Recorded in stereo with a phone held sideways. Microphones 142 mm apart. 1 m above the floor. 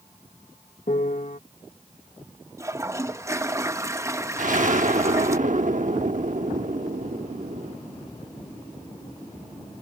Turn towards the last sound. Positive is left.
turn(degrees=-65)  # may be behind; listen again after turning